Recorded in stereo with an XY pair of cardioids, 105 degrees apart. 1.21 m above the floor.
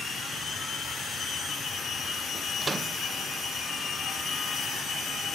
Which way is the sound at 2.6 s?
30° right.